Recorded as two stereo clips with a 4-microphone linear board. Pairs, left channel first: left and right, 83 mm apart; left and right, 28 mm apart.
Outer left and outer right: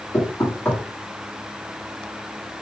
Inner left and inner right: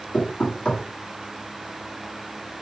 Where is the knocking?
25° left (ahead or behind), 1.8 m.